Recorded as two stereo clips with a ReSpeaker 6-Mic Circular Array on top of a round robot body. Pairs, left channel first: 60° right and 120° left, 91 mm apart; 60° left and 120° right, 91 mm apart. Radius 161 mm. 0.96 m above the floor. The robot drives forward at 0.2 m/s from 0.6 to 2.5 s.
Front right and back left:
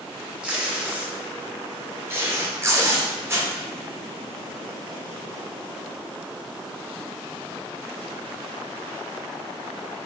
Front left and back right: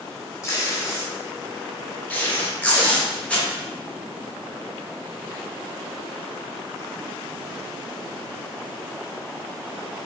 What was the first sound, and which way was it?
Tape being pulled, 55° left.